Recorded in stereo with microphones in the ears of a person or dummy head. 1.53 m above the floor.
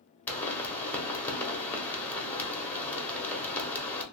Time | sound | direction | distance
0.3 | a pop | 15° left (ahead or behind) | 1.1 m